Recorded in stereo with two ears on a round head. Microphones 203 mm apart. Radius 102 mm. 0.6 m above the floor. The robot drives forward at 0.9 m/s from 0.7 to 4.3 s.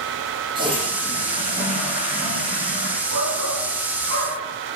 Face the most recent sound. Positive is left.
turn(degrees=-55)  # may be behind; listen again after turning